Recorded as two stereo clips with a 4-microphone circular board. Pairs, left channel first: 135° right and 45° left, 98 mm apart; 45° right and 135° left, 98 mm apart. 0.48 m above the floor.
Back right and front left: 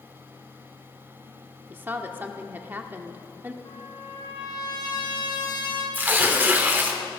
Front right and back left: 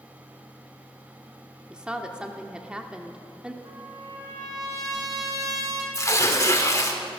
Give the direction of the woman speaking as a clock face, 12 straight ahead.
10 o'clock.